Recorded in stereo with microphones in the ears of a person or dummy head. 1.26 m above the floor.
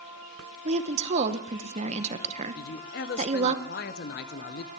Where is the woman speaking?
35° right (ahead or behind), 0.8 m.